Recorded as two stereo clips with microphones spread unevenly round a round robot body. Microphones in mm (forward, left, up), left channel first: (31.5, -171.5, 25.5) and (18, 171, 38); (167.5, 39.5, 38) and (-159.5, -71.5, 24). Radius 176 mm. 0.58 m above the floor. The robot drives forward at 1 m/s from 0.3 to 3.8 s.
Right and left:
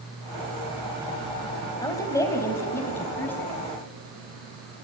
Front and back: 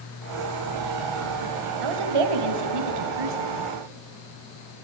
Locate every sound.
1.8 s a woman speaking: 170° right, 3 m; by 3.5 s 175° right, 4.5 m